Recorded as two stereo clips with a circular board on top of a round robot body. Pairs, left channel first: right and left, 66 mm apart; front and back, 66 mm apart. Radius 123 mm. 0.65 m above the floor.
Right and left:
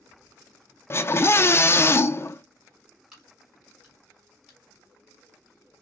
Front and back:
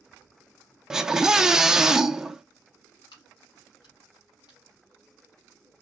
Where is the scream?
100° right, 0.6 m.